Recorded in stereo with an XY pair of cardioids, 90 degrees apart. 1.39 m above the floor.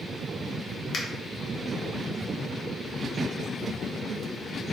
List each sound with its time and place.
0.9 s a finger snap: 50° left, 0.6 m